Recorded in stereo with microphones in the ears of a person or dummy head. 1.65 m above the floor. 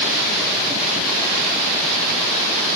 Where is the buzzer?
I don't hear a buzzer.